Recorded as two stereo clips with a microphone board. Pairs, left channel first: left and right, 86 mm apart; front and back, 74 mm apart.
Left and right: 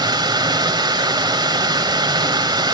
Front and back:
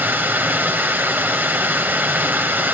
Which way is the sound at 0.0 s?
120° right.